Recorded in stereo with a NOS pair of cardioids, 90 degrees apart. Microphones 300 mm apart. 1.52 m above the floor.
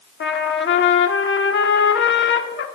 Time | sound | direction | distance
0.2 | a trumpet | 40° left | 1.0 m